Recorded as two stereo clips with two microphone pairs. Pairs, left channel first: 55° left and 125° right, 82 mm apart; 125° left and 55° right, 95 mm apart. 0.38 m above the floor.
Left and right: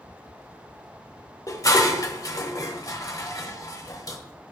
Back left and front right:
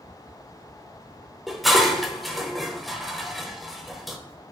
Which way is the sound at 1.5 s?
35° left.